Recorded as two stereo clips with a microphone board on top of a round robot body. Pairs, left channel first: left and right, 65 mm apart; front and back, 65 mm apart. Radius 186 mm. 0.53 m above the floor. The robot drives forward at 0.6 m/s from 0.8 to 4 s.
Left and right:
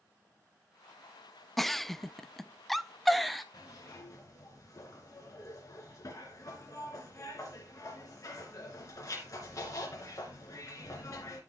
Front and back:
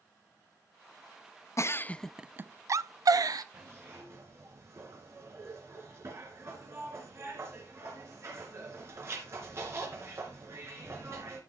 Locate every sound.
1.6 s a giggle: 5° left, 0.6 m; by 3.4 s straight behind, 0.9 m
3.5 s a zipper: 125° left, 2.5 m; by 11.4 s 130° left, 2.5 m